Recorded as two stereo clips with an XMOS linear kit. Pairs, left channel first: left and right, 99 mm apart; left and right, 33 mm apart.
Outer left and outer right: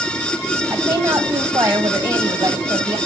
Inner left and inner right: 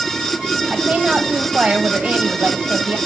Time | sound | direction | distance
0.7 | a woman speaking | 40° right (ahead or behind) | 4 m